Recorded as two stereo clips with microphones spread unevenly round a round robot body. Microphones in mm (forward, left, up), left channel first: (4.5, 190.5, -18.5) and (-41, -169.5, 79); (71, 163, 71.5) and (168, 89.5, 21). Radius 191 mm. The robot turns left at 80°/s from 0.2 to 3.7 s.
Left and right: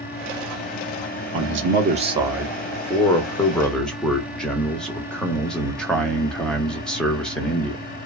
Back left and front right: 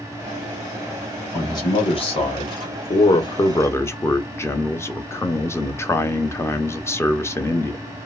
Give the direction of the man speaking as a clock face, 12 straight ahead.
4 o'clock.